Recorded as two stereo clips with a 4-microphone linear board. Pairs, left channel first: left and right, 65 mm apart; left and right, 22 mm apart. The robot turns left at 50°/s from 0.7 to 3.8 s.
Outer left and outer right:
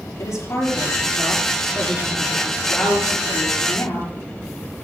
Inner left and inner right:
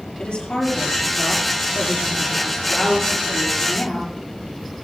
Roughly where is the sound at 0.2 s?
Behind left.